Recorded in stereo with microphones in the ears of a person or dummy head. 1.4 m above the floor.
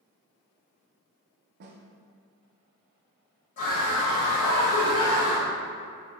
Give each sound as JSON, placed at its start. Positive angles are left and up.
{"t": 1.6, "sound": "a snare drum", "side_deg": -50, "distance_m": 0.5}
{"t": 3.6, "sound": "a scream", "side_deg": 40, "distance_m": 0.7}